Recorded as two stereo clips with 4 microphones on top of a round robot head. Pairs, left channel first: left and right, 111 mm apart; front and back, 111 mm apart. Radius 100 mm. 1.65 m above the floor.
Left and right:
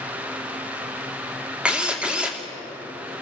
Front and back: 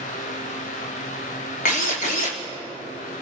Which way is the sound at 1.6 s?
10° right.